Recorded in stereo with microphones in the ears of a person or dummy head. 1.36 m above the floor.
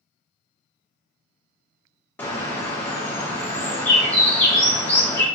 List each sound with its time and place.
2.2 s a bird: 10° left (ahead or behind), 0.5 m